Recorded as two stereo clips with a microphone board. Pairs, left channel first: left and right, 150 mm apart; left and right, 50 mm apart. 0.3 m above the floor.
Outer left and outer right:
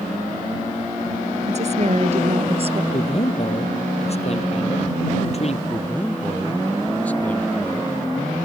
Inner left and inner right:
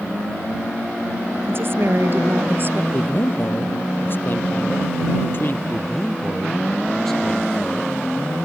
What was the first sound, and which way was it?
A woman speaking, 50° right (ahead or behind).